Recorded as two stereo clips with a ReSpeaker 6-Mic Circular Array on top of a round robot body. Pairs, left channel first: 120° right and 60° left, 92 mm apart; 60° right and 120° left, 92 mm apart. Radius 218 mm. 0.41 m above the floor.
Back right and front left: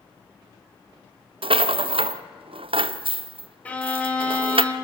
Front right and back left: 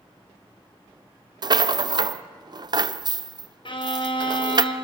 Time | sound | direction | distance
1.4 | a rattle | 80° left | 0.7 m
3.6 | a violin | 45° right | 2.5 m